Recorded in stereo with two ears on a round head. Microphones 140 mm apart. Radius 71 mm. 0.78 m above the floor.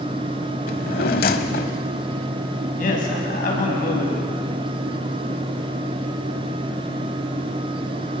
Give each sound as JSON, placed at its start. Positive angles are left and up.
{"t": 0.7, "sound": "a drawer", "side_deg": 60, "distance_m": 1.1}
{"t": 2.8, "sound": "a man speaking", "side_deg": 55, "distance_m": 6.5}